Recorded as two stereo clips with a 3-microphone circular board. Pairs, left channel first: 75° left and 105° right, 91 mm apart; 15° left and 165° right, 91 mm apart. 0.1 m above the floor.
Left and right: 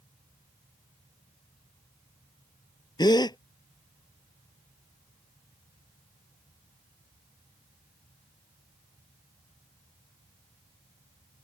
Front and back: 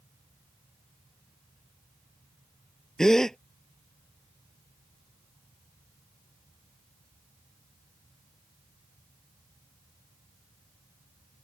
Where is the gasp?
100° left.